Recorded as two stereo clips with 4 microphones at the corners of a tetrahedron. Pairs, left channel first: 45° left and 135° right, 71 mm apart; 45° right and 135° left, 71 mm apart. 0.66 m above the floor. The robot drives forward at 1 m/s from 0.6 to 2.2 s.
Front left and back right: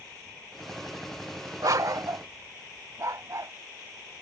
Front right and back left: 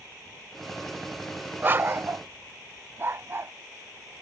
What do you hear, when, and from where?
1.6 s a dog barking: 165° right; by 3.5 s 170° right